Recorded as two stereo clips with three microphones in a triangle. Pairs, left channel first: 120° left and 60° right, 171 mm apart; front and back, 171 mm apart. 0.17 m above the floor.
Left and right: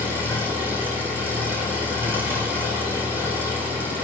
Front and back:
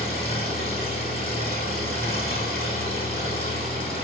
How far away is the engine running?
About 6.5 m.